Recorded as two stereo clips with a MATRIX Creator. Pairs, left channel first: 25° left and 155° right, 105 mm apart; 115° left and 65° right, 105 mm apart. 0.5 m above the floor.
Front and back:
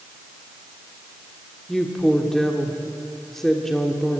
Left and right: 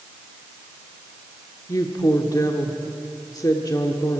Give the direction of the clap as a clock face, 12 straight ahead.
I don't hear a clap.